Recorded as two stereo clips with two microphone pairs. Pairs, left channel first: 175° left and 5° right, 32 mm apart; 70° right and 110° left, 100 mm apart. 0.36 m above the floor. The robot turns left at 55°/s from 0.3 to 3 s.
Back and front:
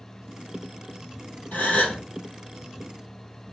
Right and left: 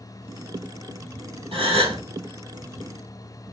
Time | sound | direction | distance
1.5 | a gasp | 140° left | 2 m